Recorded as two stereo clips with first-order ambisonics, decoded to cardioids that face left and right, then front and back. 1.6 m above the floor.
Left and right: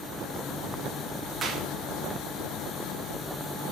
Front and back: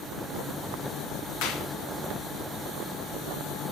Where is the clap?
15° right, 2.5 m.